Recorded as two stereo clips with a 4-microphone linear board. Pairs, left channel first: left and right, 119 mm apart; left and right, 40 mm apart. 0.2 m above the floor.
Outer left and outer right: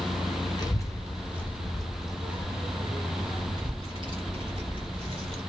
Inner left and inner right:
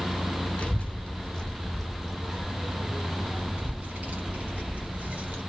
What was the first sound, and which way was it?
A child speaking, 35° left (ahead or behind).